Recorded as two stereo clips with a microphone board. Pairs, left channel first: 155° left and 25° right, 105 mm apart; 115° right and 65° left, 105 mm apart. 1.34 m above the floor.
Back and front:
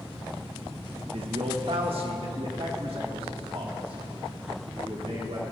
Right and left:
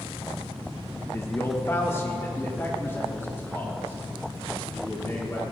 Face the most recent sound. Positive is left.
turn(degrees=-45)